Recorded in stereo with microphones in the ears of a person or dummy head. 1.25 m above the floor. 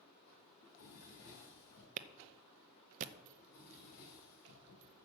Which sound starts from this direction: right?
A clap, at 2.0 s.